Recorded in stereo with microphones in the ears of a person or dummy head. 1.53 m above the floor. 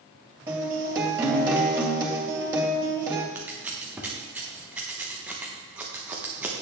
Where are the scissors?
10° right (ahead or behind), 1.0 m.